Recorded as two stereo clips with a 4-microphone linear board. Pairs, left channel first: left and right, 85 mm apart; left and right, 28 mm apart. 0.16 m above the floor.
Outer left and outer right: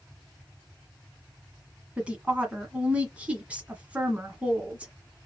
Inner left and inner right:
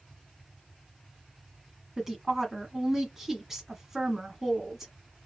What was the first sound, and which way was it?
A woman speaking, 15° right (ahead or behind).